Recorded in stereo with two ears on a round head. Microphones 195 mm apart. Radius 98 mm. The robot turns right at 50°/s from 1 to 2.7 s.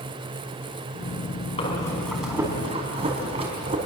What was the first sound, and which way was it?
Breathing, 150° left.